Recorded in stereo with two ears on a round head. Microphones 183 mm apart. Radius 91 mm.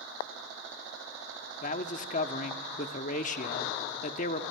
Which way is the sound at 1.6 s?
40° left (ahead or behind).